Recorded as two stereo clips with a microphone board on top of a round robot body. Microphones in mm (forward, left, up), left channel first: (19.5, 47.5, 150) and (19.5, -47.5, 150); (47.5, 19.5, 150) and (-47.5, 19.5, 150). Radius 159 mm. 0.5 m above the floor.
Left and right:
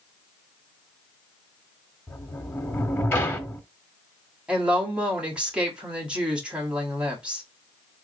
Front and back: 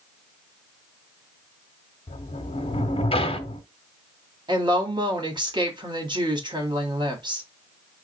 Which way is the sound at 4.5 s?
165° right.